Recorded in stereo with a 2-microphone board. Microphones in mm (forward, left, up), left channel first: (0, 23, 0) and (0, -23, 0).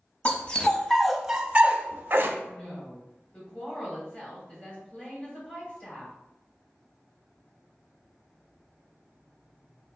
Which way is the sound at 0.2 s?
35° left (ahead or behind).